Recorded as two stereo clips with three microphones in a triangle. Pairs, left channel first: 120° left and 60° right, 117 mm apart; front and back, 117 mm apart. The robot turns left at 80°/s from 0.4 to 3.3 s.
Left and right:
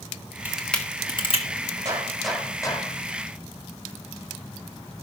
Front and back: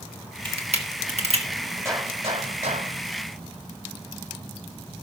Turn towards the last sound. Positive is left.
turn(degrees=125)